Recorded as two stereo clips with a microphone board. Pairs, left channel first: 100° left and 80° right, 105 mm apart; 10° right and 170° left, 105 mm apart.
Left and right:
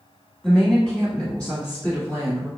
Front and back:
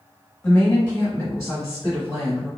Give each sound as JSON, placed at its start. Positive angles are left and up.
{"t": 0.4, "sound": "a woman speaking", "azimuth_deg": 20, "distance_m": 1.0}